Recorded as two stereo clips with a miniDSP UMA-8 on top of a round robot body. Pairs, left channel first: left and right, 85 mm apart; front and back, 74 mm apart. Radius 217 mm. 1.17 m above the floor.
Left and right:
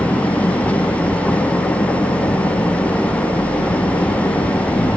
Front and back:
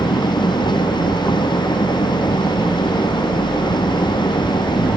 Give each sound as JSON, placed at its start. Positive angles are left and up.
{"t": 0.0, "sound": "an engine running", "azimuth_deg": 15}